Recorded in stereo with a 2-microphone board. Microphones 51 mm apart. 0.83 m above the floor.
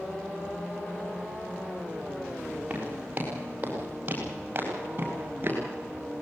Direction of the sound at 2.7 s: 25° right (ahead or behind).